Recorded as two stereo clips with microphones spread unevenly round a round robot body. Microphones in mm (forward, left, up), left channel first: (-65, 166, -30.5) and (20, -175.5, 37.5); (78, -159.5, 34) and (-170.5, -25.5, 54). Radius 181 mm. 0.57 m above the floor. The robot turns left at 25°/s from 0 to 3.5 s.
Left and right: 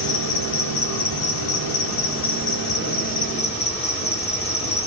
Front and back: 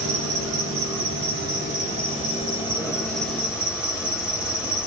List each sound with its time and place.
0.0 s an insect: 135° left, 1.7 m; by 4.9 s 50° left, 1.7 m